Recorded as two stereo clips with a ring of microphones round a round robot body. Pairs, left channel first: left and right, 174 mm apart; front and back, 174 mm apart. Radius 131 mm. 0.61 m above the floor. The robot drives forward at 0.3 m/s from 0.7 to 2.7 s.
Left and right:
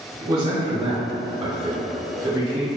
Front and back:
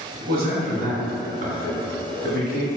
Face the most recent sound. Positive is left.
turn(degrees=-160)